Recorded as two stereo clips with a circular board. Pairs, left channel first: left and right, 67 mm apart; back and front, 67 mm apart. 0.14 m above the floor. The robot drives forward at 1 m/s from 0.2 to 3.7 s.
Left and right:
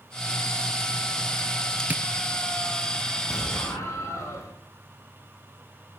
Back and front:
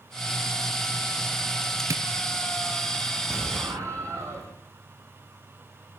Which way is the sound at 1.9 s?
30° right.